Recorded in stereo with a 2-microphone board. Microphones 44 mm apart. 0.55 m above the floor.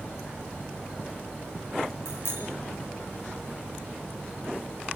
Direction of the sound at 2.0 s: 65° left (ahead or behind).